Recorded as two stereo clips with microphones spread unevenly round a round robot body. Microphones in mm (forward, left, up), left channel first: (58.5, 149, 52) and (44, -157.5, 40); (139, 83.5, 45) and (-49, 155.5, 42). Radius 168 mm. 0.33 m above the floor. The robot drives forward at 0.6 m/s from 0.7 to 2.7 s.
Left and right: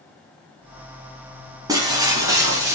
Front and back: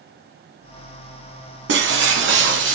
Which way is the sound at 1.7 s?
170° right.